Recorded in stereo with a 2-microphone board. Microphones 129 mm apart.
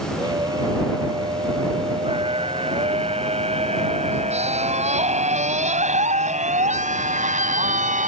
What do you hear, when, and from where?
0.2 s a scream: 30° right (ahead or behind); by 8.1 s 75° right (ahead or behind)